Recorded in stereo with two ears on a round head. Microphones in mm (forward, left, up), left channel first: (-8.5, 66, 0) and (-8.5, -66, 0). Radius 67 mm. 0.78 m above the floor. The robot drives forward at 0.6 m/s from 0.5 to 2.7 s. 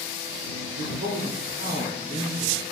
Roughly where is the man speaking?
Right.